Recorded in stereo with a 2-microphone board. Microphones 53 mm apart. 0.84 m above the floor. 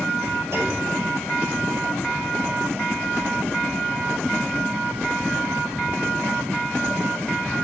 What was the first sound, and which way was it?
A clunk, 70° right (ahead or behind).